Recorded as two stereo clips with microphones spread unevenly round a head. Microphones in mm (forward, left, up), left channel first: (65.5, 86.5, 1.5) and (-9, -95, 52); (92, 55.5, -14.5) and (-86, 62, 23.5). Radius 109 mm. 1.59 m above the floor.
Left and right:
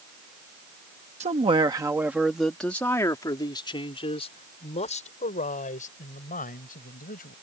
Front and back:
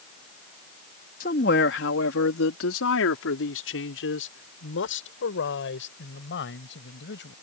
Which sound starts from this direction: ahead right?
A man speaking, at 1.2 s.